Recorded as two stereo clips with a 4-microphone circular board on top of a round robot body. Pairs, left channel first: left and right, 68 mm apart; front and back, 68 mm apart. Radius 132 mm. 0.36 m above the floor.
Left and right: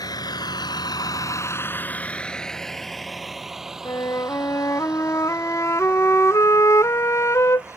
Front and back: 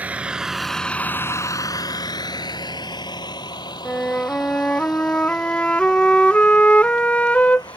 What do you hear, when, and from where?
0.0 s a vehicle: 110° left; by 7.8 s 20° right
3.9 s a flute: 65° left